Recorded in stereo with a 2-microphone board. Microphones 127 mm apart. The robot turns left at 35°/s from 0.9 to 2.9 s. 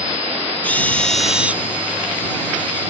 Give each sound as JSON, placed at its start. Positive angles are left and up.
{"t": 0.6, "sound": "a drill", "side_deg": 10}